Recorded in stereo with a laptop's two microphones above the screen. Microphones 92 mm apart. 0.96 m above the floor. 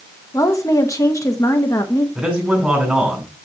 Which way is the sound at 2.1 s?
5° right (ahead or behind).